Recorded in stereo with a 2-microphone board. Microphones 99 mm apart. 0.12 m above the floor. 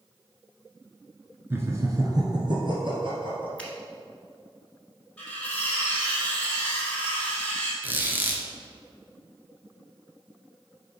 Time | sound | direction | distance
1.5 | laughter | 25° right (ahead or behind) | 1.3 m
3.6 | a finger snap | 10° left (ahead or behind) | 1.2 m
5.2 | cutlery clinking | 10° left (ahead or behind) | 1.9 m
7.8 | a squeak | 20° right (ahead or behind) | 1.0 m